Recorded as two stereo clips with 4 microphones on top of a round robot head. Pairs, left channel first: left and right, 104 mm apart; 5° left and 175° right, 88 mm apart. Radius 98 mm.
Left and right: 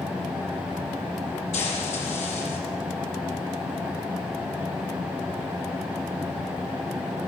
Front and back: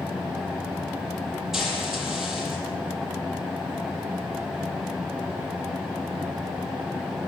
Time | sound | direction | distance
1.5 | frying | 100° left | 6.5 m